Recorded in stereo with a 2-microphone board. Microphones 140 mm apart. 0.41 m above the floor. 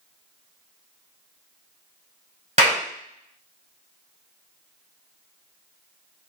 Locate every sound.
2.6 s a clap: 55° right (ahead or behind), 1.6 m